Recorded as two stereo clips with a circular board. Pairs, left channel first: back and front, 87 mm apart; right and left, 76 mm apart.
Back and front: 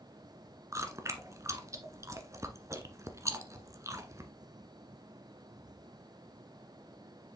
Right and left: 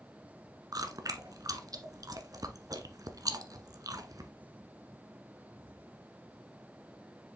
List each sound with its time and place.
0.7 s chewing: 55° left, 1.2 m